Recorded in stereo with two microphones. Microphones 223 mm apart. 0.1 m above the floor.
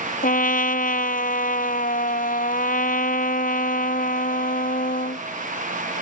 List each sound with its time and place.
0.2 s a trumpet: 40° left (ahead or behind)